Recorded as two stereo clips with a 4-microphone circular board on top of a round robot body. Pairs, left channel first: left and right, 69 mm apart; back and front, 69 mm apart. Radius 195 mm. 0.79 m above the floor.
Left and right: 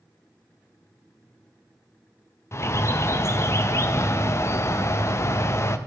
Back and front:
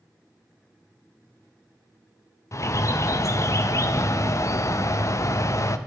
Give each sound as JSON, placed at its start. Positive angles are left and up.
{"t": 2.5, "sound": "a bird", "azimuth_deg": 140, "distance_m": 0.7}